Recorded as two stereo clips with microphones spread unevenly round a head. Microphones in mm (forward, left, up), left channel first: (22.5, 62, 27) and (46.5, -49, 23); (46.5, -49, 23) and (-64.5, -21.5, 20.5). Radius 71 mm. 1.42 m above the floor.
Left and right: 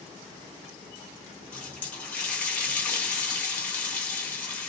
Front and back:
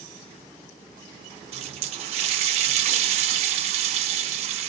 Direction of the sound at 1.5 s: Straight behind.